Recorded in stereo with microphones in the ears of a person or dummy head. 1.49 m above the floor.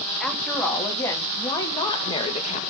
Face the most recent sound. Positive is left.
turn(degrees=35)  # may be behind; listen again after turning